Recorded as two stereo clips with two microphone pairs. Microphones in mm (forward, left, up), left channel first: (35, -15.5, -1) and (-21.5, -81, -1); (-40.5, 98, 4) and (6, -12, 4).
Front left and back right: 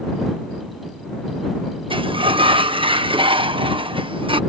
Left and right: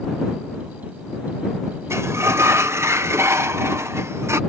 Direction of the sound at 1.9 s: 140° right.